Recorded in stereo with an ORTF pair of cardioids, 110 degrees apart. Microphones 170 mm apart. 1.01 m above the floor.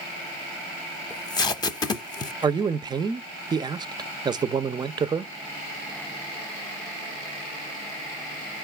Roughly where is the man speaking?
Ahead right.